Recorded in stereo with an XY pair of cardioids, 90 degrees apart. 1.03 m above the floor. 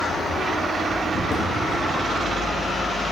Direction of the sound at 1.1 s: 65° left.